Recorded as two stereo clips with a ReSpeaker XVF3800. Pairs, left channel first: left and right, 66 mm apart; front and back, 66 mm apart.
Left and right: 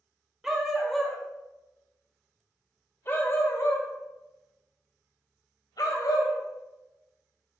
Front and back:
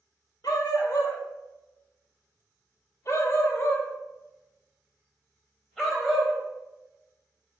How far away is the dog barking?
About 2 m.